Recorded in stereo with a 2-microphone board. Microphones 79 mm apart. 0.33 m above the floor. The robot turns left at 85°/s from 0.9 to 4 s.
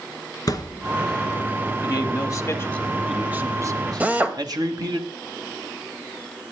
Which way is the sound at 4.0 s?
20° right (ahead or behind).